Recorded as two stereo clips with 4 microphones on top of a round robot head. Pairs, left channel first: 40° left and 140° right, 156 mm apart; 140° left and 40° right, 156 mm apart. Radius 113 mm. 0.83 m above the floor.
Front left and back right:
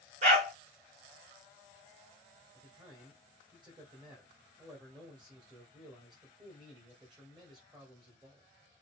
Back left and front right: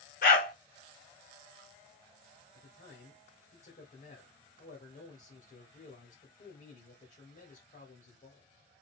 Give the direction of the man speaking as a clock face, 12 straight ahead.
7 o'clock.